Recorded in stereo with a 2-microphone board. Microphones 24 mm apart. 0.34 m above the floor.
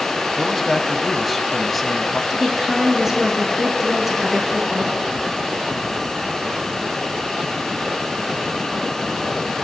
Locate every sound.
0.4 s a man speaking: 5° left (ahead or behind), 1.8 m
2.3 s a woman speaking: 15° right (ahead or behind), 5 m